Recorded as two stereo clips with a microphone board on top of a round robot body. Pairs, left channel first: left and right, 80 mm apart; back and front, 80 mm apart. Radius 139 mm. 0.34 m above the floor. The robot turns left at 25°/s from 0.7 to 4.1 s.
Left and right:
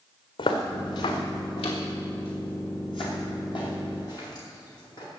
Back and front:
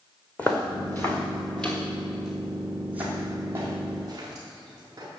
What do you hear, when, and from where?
0.4 s footsteps: 105° left, 1.6 m; by 5.1 s 50° left, 6 m